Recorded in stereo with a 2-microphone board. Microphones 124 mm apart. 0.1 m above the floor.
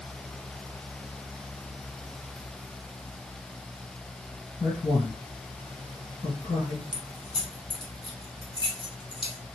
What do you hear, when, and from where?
4.6 s a man speaking: 35° left (ahead or behind), 2 m
6.9 s keys jangling: 40° left (ahead or behind), 1.3 m